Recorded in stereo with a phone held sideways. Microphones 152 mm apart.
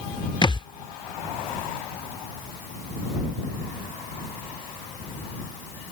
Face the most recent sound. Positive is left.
turn(degrees=30)  # may be behind; listen again after turning